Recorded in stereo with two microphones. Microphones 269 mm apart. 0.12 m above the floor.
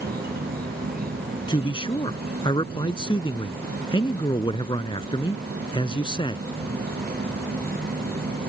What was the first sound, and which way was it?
An insect, 35° right (ahead or behind).